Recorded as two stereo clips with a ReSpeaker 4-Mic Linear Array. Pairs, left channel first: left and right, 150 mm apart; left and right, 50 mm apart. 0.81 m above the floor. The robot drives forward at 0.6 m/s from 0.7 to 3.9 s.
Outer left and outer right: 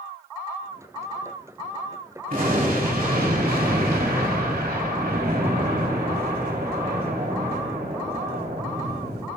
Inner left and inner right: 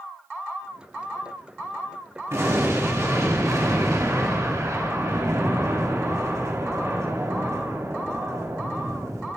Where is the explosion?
65° right (ahead or behind), 3.5 m; by 9.3 s 80° right, 3 m.